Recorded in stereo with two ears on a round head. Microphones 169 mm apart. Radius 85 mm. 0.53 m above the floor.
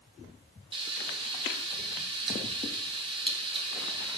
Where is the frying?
25° right (ahead or behind), 2.5 m.